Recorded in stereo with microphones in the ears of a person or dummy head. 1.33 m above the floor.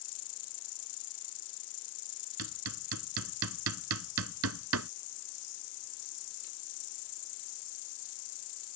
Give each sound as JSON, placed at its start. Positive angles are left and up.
{"t": 0.0, "sound": "an insect", "side_deg": 65}
{"t": 2.4, "sound": "hammering", "side_deg": -75}